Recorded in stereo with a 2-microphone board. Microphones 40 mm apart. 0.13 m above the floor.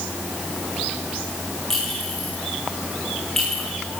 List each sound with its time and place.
1.7 s a clink: 10° left (ahead or behind), 8 m